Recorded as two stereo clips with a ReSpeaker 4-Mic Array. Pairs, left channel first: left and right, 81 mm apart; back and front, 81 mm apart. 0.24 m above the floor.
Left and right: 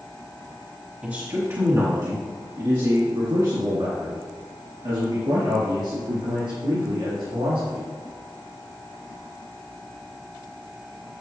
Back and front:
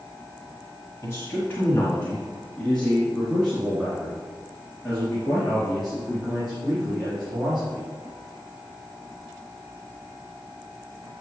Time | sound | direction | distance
1.0 | a man speaking | 150° right | 1.5 m